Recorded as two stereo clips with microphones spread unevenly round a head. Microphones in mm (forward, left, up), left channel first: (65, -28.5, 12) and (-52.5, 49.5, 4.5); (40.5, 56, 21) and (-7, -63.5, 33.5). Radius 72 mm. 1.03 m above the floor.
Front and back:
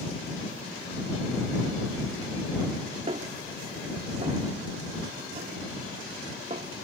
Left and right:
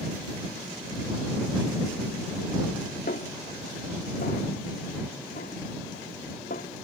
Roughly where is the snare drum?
Left.